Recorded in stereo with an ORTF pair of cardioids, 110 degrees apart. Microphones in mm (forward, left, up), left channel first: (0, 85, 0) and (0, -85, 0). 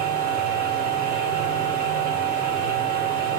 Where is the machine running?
70° right, 1.1 m.